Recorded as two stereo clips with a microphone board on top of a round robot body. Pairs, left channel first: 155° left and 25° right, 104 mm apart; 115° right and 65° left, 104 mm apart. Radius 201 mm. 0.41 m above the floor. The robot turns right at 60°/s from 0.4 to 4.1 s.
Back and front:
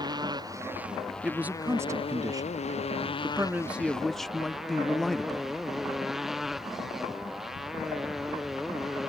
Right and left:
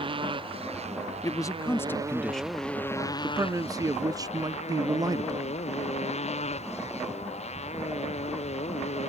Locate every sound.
0.0 s a motorcycle: 30° left; by 9.1 s 110° right
1.2 s a man speaking: 100° right; by 5.6 s 75° left